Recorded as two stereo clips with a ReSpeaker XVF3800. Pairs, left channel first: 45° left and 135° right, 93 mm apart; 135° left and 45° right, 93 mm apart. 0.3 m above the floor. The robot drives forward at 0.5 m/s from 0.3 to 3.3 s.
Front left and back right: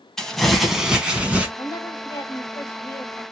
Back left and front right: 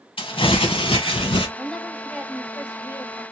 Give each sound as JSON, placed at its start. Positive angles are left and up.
{"t": 0.2, "sound": "crumpling", "azimuth_deg": 130, "distance_m": 0.9}
{"t": 1.6, "sound": "a woman speaking", "azimuth_deg": 50, "distance_m": 1.3}